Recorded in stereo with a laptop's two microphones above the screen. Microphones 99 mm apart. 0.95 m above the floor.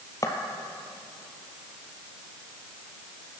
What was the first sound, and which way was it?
Footsteps, 35° left (ahead or behind).